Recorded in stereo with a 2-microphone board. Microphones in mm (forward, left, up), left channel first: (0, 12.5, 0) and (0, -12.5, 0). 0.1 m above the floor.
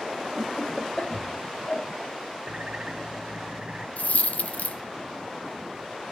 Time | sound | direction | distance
0.4 | laughter | 30° left (ahead or behind) | 1.6 m
2.5 | a bird | 35° right (ahead or behind) | 1.1 m
4.0 | a dropped coin | 70° left (ahead or behind) | 0.6 m